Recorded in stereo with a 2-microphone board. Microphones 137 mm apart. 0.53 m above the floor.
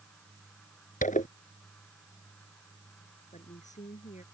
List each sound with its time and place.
1.0 s a zipper: 70° left (ahead or behind)
3.3 s a woman speaking: 60° left (ahead or behind)